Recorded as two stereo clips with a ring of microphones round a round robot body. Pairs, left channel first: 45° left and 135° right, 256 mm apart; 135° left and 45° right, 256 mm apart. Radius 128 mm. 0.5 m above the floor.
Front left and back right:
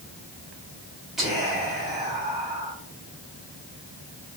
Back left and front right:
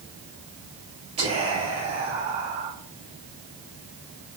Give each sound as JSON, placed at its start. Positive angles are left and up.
{"t": 1.2, "sound": "whispering", "azimuth_deg": -50, "distance_m": 1.2}